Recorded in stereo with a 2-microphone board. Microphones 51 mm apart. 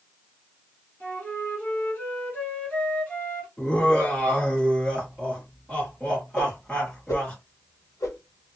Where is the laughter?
20° left (ahead or behind), 1.5 m.